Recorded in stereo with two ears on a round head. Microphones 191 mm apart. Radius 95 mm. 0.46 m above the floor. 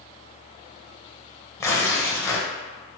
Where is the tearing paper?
15° left (ahead or behind), 0.6 m.